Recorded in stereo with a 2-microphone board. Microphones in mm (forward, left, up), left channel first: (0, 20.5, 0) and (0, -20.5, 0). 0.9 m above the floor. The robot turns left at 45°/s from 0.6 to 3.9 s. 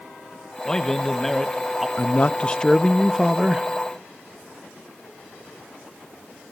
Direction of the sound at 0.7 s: 15° left (ahead or behind).